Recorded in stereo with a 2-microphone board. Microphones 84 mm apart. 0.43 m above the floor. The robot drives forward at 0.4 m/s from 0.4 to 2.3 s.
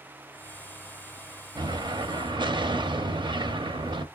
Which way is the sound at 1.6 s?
60° right (ahead or behind).